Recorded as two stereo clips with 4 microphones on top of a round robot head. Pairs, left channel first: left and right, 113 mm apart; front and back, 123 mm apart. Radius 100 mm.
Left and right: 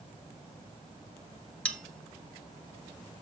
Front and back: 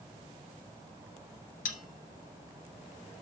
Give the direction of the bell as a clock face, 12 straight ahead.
12 o'clock.